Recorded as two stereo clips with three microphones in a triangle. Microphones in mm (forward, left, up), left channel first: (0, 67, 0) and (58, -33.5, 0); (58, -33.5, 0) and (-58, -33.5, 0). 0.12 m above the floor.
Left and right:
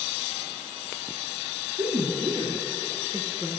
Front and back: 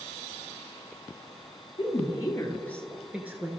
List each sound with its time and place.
1.8 s a woman speaking: 35° right, 2.5 m; by 3.5 s 125° right, 1.9 m